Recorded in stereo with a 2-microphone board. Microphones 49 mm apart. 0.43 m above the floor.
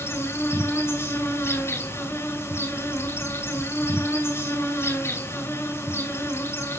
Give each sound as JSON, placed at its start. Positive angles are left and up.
{"t": 0.0, "sound": "an insect", "side_deg": 65, "distance_m": 7.5}